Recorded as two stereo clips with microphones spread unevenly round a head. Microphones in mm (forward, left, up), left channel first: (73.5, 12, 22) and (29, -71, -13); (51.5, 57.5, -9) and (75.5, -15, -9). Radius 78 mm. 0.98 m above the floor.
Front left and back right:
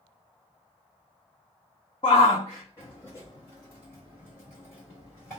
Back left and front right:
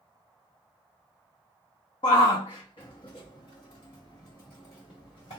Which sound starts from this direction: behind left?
A shout, at 2.0 s.